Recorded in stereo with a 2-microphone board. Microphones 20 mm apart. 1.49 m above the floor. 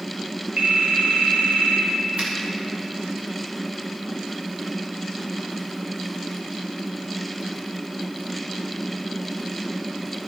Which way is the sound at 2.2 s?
80° right.